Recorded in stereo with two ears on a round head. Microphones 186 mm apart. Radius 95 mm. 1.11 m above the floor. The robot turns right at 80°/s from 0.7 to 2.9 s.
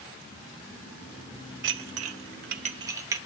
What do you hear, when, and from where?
1.6 s dishes clattering: 60° right (ahead or behind), 0.7 m; by 3.2 s 15° right (ahead or behind), 0.7 m